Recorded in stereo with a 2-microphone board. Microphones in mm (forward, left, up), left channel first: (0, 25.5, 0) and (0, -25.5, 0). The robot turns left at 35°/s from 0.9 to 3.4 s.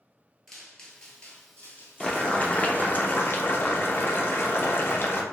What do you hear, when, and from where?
0.5 s footsteps: 5° left (ahead or behind), 0.9 m; by 3.0 s 50° left (ahead or behind), 1.5 m
2.0 s boiling: 160° left, 0.5 m; by 5.2 s 110° left, 0.5 m